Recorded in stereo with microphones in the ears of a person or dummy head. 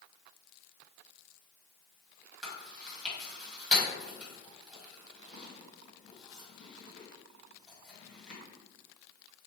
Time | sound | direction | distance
2.4 | chewing | centre (ahead or behind) | 1.7 m